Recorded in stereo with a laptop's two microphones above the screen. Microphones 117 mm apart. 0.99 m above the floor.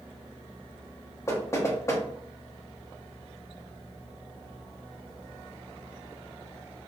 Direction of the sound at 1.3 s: 25° left (ahead or behind).